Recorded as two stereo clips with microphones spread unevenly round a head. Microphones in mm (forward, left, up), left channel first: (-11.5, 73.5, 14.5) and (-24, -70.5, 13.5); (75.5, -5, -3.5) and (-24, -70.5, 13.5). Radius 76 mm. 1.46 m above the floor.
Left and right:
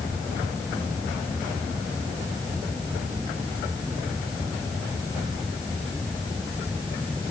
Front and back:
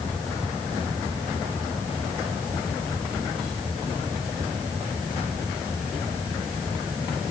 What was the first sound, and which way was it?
Only background noise.